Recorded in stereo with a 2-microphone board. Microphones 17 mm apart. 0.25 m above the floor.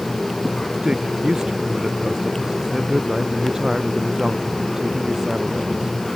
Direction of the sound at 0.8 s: 40° right (ahead or behind).